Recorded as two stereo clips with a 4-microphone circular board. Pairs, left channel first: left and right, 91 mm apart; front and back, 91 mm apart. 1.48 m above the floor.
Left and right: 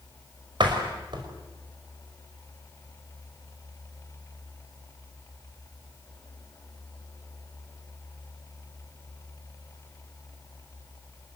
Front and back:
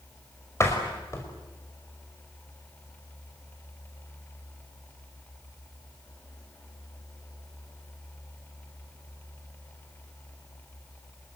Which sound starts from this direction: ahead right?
A door slam, at 0.6 s.